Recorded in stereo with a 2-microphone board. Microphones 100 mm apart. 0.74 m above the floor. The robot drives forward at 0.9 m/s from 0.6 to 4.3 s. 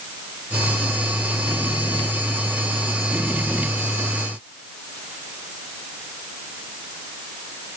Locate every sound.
Only background noise.